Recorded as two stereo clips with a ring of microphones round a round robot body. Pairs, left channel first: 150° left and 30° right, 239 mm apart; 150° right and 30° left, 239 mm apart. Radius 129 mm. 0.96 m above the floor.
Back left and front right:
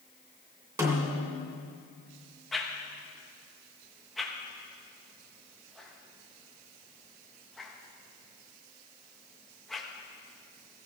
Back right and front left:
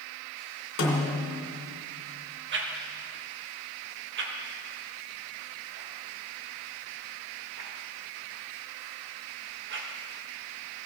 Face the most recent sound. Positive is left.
turn(degrees=60)